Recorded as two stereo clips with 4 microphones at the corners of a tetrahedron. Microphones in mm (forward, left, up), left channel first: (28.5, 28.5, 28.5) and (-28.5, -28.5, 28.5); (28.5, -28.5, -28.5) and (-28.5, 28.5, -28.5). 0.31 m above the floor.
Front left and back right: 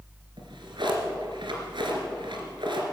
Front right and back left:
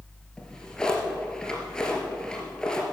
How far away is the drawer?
About 2.5 m.